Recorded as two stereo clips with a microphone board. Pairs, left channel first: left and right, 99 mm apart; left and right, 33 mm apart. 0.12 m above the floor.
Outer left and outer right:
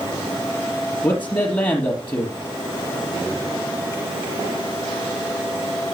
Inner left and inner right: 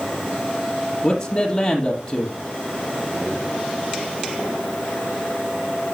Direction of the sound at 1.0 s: 20° left (ahead or behind).